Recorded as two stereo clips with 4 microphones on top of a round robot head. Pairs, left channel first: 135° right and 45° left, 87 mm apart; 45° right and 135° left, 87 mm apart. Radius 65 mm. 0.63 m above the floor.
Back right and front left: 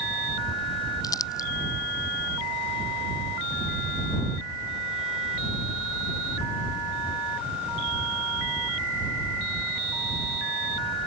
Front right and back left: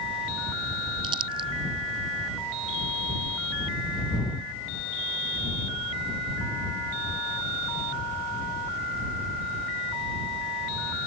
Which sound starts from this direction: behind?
Crumpling, at 1.0 s.